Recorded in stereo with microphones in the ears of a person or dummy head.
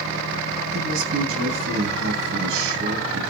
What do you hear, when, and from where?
0.7 s a man speaking: 70° right (ahead or behind), 8.5 m